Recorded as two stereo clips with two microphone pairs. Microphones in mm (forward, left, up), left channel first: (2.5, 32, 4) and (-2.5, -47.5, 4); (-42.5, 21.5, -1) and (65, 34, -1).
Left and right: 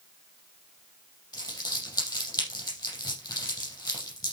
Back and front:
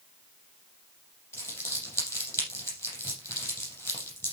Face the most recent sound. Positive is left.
turn(degrees=120)